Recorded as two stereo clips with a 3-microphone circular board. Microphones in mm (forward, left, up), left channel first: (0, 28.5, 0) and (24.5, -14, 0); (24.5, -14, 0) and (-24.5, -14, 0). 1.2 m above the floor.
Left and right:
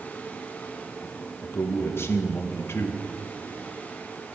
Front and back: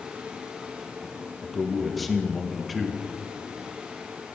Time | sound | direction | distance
1.4 | a man speaking | 90° left | 1.2 m